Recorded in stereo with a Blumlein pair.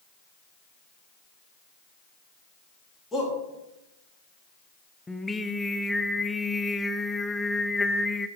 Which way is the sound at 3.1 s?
10° left.